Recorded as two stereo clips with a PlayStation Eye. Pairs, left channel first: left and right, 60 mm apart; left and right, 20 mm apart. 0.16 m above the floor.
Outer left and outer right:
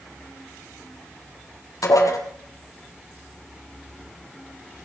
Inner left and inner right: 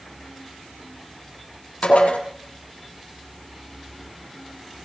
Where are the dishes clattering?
75° left (ahead or behind), 3 m.